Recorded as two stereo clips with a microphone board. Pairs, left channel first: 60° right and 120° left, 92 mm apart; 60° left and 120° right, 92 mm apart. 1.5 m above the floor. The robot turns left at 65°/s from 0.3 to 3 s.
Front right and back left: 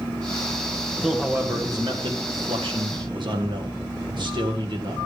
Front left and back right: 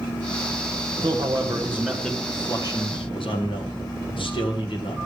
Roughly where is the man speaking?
Behind right.